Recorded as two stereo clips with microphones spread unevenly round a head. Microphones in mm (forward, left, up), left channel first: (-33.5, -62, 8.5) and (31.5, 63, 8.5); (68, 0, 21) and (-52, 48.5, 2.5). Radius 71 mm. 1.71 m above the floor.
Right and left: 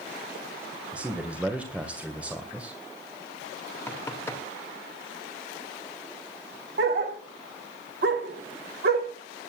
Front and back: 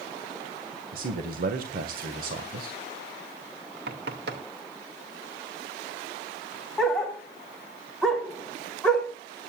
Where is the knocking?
170° left, 2.5 m.